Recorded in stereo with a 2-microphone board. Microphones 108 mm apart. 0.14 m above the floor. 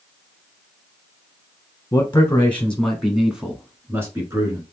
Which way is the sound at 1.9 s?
25° left (ahead or behind).